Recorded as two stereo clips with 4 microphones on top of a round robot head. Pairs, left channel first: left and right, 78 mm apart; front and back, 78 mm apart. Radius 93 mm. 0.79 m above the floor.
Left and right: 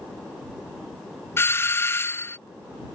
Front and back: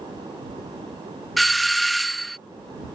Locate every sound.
1.4 s a doorbell: 90° left